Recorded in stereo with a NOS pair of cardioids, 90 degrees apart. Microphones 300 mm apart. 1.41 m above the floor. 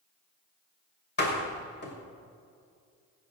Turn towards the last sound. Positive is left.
turn(degrees=35)